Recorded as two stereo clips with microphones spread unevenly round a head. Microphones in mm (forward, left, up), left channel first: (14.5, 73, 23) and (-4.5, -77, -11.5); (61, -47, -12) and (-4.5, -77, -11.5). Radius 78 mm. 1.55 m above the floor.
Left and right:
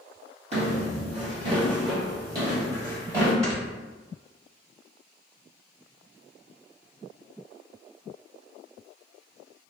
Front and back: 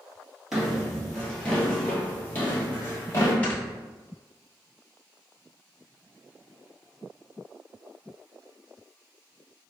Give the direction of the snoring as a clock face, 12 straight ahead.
1 o'clock.